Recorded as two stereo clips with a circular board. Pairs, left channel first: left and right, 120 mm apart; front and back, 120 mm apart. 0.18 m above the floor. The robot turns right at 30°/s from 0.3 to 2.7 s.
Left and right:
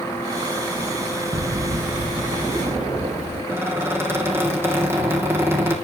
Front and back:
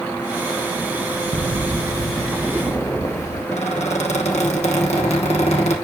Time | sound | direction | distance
1.3 | footsteps | 130° right | 0.6 m
3.5 | a squeak | 20° right | 3 m